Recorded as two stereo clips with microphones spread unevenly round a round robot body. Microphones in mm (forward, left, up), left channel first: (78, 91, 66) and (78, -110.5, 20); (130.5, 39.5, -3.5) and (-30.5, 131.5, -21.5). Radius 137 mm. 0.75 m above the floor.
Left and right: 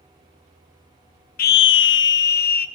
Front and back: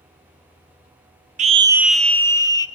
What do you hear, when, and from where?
1.4 s a scream: 135° left, 0.6 m; by 2.7 s 40° left, 1.5 m